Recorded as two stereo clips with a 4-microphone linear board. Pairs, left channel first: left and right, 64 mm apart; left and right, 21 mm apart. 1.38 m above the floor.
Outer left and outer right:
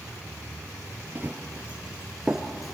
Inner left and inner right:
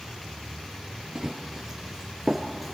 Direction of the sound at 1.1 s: 30° right (ahead or behind).